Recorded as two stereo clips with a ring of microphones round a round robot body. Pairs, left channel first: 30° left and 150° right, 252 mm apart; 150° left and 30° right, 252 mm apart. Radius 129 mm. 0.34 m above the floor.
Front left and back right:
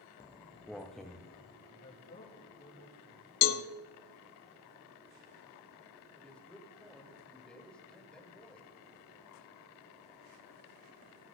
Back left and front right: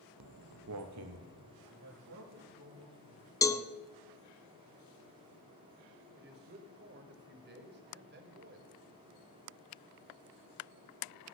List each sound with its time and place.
0.2 s footsteps: 50° right, 0.8 m; by 1.5 s 60° right, 2 m
1.6 s a man speaking: 15° right, 6.5 m
3.4 s a cowbell: 70° left, 0.6 m
6.2 s a man speaking: 55° right, 2.0 m